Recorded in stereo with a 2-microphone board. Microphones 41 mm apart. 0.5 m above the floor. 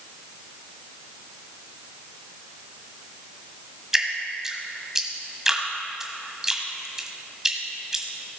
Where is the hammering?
I don't hear hammering.